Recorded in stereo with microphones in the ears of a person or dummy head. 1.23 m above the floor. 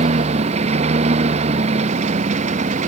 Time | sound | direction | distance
0.0 | a lawn mower | 45° right (ahead or behind) | ?